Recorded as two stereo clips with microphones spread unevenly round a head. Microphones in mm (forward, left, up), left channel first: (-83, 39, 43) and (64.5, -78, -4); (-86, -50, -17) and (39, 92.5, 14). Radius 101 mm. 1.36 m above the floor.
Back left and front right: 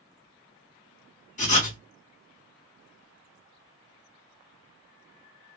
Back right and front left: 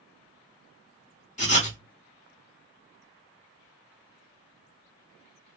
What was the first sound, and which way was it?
Writing, 175° left.